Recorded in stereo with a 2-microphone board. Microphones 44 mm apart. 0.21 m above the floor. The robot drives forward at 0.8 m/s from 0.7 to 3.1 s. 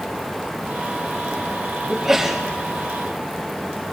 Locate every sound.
1.9 s a sneeze: 5° right (ahead or behind), 5 m